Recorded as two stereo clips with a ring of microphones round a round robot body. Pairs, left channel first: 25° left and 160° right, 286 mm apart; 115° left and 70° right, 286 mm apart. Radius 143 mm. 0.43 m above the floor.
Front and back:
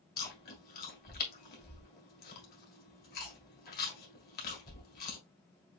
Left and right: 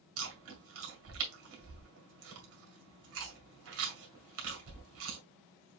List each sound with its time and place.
0.2 s chewing: 35° right, 1.9 m